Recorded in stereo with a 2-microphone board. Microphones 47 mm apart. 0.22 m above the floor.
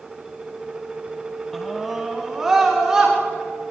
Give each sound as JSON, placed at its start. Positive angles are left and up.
{"t": 1.5, "sound": "a scream", "side_deg": 5, "distance_m": 1.3}